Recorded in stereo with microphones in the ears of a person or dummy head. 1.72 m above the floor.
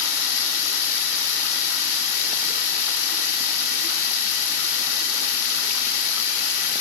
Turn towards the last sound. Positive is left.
turn(degrees=50)  # may be behind; listen again after turning